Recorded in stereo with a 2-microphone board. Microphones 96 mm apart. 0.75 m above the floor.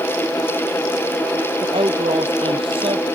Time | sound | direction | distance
1.6 | a woman speaking | 70° right (ahead or behind) | ?